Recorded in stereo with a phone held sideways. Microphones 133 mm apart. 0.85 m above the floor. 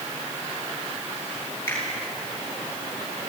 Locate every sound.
1.7 s a finger snap: 15° left (ahead or behind), 9.5 m